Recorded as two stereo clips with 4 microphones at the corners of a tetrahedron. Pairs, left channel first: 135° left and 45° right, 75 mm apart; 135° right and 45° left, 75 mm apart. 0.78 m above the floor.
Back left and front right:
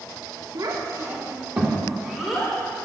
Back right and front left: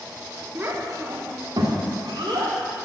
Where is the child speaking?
15° right, 1.1 m; by 2.5 s 50° left, 2 m.